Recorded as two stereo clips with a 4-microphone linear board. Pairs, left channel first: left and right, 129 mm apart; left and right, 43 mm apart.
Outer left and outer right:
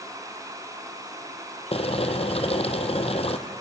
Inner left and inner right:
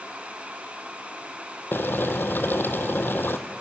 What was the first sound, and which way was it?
Boiling, 50° left (ahead or behind).